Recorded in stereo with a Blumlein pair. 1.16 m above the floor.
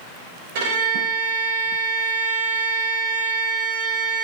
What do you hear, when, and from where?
0.6 s a violin: 50° right, 3 m